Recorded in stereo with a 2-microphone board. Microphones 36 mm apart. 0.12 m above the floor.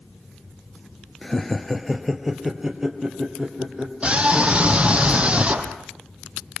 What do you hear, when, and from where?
1.2 s laughter: 10° left (ahead or behind), 2.5 m; by 3.9 s 25° right (ahead or behind), 5 m
4.0 s a scream: 35° right (ahead or behind), 3.5 m